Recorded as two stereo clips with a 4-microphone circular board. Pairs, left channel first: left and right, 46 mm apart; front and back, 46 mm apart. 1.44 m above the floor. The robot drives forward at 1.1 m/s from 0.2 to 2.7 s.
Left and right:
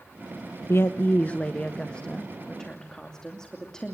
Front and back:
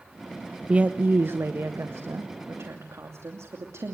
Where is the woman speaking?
110° left, 0.7 m; by 3.9 s 165° left, 2.5 m.